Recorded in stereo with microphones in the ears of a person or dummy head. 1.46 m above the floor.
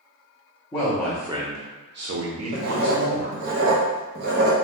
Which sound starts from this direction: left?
A man speaking, at 0.7 s.